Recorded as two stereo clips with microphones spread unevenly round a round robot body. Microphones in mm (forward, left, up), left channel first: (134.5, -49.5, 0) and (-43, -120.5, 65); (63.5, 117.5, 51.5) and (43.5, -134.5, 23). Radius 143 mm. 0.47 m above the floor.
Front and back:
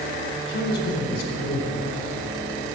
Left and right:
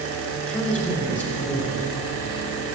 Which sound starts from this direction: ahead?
A man speaking, at 0.4 s.